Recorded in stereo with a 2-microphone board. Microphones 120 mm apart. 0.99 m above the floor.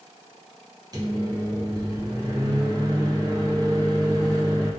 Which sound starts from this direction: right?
A microwave, at 0.9 s.